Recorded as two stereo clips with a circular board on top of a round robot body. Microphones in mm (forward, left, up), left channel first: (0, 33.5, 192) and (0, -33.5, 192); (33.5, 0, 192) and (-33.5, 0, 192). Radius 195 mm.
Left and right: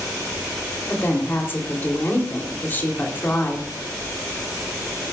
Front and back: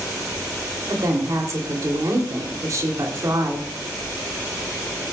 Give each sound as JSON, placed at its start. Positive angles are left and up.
{"t": 0.9, "sound": "a woman speaking", "azimuth_deg": 145, "distance_m": 2.5}